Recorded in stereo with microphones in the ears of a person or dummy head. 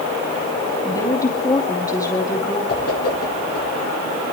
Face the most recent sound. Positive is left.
turn(degrees=55)  # may be behind; listen again after turning